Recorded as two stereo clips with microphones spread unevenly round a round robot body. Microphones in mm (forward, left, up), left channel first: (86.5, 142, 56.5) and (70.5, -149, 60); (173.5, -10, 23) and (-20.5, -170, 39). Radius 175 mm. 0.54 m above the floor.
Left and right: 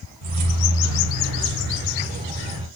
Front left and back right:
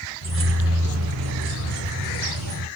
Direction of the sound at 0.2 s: 100° right.